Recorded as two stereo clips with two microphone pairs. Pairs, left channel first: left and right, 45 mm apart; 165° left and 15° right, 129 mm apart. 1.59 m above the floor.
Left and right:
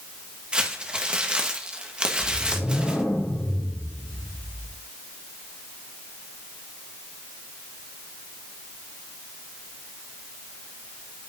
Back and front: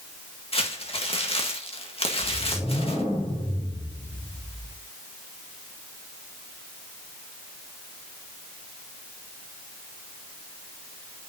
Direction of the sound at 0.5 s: 155° right.